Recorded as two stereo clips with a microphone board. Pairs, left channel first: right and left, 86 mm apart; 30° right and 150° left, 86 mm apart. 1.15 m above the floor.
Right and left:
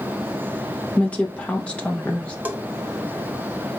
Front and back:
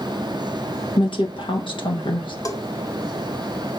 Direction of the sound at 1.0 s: 15° right.